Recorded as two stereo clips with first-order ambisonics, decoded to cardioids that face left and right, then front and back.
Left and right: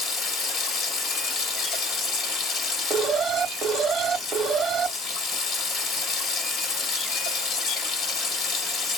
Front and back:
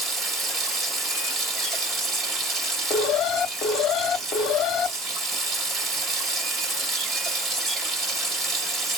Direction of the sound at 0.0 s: 125° left.